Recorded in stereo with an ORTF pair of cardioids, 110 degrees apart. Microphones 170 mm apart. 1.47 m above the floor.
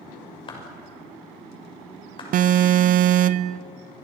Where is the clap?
30° left, 6 m.